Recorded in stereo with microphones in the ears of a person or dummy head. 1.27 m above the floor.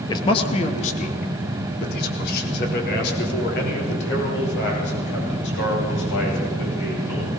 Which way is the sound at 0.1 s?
20° left (ahead or behind).